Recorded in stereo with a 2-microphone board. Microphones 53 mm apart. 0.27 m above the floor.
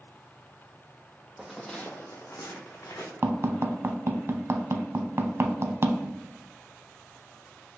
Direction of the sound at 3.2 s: 50° right (ahead or behind).